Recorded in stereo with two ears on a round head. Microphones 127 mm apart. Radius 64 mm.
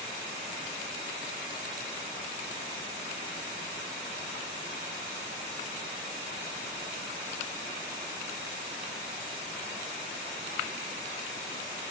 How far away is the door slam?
No door slam in this recording.